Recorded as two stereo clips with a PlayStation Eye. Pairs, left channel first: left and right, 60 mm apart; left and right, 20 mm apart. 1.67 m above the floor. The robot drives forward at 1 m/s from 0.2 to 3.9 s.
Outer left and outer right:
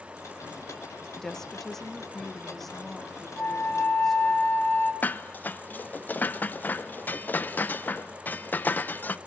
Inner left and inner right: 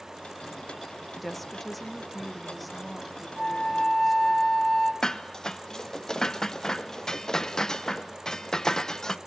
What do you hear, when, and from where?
1.2 s a woman speaking: 10° left (ahead or behind), 1.4 m; by 4.4 s 5° left (ahead or behind), 4 m
3.4 s a flute: 35° left (ahead or behind), 2 m; by 4.9 s 30° left (ahead or behind), 2.5 m
5.0 s dishes clattering: 30° left (ahead or behind), 0.8 m